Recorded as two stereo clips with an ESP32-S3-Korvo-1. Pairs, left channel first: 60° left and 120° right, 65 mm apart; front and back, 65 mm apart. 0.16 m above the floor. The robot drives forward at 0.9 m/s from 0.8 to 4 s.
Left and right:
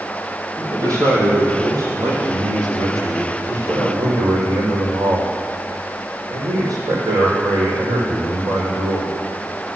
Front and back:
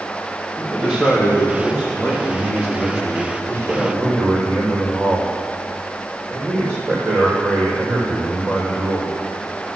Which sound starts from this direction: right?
A man speaking, at 0.6 s.